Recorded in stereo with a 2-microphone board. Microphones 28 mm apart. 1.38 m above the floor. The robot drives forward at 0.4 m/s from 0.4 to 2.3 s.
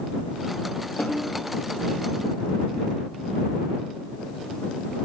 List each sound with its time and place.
1.0 s a snare drum: 75° left (ahead or behind), 10 m